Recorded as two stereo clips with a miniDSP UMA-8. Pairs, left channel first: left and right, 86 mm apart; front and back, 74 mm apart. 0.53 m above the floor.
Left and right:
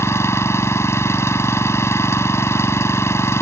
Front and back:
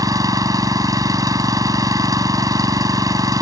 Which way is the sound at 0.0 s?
145° left.